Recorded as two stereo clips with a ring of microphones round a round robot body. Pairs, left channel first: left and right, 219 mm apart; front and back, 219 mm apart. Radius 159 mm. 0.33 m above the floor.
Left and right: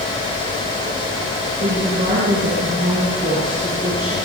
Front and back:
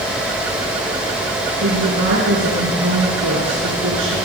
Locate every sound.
1.6 s a woman speaking: 155° right, 5 m